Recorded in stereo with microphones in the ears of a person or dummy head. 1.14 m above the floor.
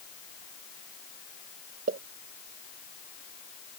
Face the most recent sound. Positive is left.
turn(degrees=-45)  # may be behind; listen again after turning